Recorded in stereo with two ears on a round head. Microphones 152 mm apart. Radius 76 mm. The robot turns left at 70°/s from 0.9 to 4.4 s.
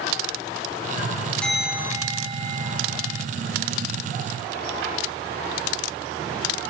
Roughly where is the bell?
Ahead.